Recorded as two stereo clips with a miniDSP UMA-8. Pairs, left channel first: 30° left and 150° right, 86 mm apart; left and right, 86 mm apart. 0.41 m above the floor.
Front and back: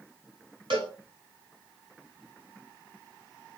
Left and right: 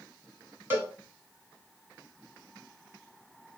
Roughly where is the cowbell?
Behind right.